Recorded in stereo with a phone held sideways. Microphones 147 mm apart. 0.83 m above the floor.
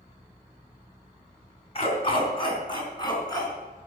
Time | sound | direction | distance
1.8 | a dog barking | 35° left (ahead or behind) | 3.5 m